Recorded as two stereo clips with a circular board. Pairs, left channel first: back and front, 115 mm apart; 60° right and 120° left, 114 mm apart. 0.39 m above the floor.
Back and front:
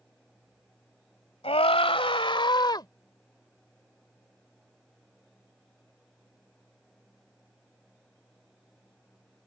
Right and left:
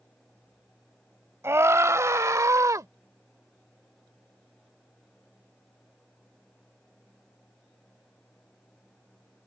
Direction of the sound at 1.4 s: 175° right.